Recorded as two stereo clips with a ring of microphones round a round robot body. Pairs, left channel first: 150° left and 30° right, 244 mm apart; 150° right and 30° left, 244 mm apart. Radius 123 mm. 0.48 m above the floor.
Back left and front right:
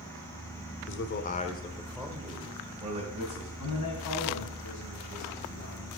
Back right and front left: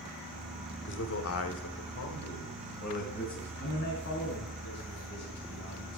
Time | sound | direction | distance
0.9 | a man speaking | 175° left | 1.4 m
3.6 | a man speaking | 170° left | 3.5 m